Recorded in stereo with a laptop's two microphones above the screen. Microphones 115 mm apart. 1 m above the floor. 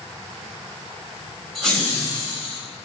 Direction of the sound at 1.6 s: Centre (ahead or behind).